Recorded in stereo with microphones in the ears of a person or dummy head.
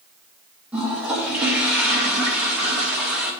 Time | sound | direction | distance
0.7 | a toilet flushing | 5° right (ahead or behind) | 2 m